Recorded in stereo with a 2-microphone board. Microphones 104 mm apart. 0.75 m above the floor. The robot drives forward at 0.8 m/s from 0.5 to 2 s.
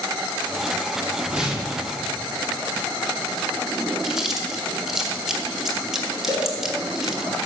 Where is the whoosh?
10° right (ahead or behind), 1.3 m; by 1.9 s 5° right (ahead or behind), 1.7 m.